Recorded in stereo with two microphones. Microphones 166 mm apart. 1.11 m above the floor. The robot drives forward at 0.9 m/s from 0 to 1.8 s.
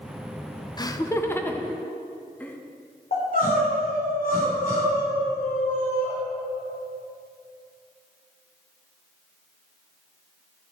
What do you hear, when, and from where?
0.8 s laughter: 25° left (ahead or behind), 0.6 m; by 2.6 s 10° left (ahead or behind), 1.4 m
3.1 s crying: 60° left (ahead or behind), 3.5 m